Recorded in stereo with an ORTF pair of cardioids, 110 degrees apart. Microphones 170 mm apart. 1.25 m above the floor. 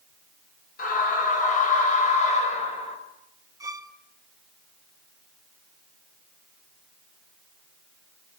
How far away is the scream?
About 7.5 m.